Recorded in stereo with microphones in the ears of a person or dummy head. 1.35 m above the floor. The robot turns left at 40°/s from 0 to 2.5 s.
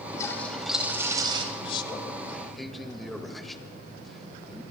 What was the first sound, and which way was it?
A toilet flushing, 20° left.